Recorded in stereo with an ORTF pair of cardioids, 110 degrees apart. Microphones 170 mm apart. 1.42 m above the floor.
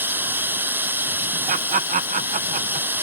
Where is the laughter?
50° right.